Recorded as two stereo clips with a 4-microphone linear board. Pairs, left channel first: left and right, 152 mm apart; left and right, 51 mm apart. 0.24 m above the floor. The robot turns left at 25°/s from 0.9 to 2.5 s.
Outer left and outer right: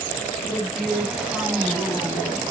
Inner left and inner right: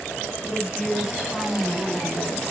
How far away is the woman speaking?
About 1.8 m.